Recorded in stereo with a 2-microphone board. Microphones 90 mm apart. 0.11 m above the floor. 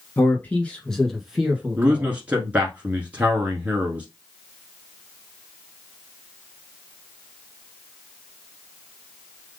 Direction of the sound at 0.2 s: 25° left (ahead or behind).